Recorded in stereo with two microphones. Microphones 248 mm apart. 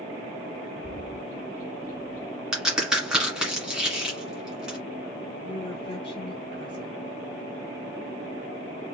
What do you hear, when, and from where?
0.8 s a bird: 10° right (ahead or behind), 1.7 m
2.5 s a crack: 5° right (ahead or behind), 1.7 m
5.4 s a woman speaking: 20° left (ahead or behind), 1.5 m